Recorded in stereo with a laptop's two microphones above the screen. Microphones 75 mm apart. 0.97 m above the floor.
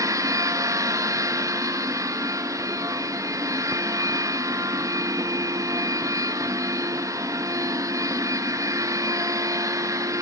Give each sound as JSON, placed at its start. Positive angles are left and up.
{"t": 0.0, "sound": "a machine running", "side_deg": -45, "distance_m": 0.8}